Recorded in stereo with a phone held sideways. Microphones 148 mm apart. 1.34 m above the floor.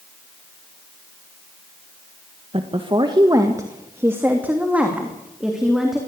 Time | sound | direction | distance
2.5 | a woman speaking | 45° right (ahead or behind) | 1.4 m